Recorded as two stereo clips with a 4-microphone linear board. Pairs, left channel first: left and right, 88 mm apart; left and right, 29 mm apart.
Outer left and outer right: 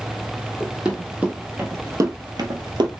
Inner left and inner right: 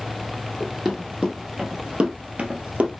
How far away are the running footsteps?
About 1.4 m.